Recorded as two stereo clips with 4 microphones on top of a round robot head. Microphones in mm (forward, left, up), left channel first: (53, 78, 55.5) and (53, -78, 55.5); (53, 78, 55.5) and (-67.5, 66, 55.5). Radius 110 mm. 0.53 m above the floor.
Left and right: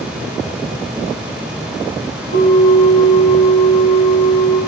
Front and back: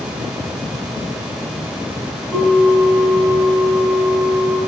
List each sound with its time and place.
2.3 s a bell: 90° left, 1.7 m